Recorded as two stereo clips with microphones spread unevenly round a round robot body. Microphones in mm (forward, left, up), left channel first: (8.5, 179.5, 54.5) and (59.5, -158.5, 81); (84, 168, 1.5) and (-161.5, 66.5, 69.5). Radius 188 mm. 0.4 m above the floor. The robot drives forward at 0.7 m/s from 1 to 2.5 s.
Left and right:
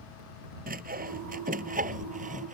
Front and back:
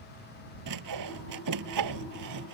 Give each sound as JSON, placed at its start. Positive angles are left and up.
{"t": 0.7, "sound": "sawing", "azimuth_deg": -150}